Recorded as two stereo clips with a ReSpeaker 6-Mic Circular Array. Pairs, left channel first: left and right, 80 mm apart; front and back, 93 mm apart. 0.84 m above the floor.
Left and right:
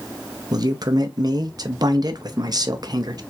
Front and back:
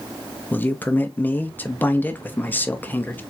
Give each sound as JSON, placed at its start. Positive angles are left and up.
{"t": 0.5, "sound": "a man speaking", "azimuth_deg": -65, "distance_m": 0.8}